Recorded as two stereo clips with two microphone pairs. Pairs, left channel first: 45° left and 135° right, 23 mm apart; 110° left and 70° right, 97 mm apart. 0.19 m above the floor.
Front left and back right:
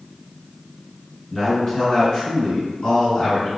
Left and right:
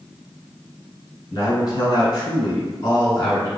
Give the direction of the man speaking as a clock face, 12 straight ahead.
8 o'clock.